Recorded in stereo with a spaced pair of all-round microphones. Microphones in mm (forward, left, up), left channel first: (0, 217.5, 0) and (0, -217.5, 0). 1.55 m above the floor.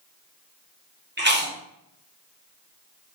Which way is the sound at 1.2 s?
25° right (ahead or behind).